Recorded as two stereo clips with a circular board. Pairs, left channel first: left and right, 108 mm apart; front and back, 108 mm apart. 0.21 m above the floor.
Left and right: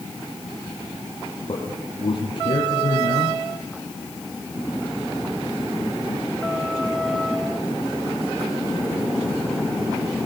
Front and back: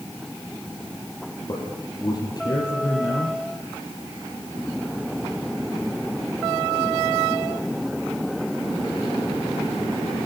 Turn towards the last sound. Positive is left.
turn(degrees=50)